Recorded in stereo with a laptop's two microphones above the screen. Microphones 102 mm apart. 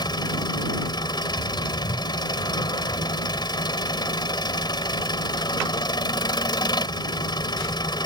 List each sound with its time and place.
0.0 s an engine running: 45° left (ahead or behind)